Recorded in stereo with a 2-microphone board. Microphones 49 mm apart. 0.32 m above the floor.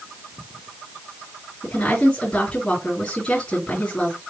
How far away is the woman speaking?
About 3 m.